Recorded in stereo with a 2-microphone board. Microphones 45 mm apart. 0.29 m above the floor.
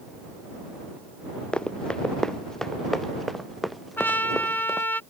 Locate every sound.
1.5 s running footsteps: 25° left (ahead or behind); by 4.9 s 5° right (ahead or behind)
4.0 s a trumpet: 50° left (ahead or behind)